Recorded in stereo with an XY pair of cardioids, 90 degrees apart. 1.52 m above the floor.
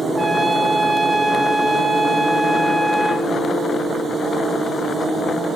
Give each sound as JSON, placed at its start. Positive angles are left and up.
{"t": 0.1, "sound": "a trumpet", "azimuth_deg": -15, "distance_m": 3.0}